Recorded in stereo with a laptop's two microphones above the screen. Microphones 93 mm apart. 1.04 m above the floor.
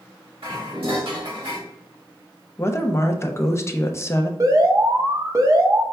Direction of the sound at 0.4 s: 70° right (ahead or behind).